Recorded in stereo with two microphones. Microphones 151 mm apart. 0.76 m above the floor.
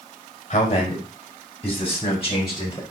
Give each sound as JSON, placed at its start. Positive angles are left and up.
{"t": 0.5, "sound": "a man speaking", "side_deg": 45, "distance_m": 3.5}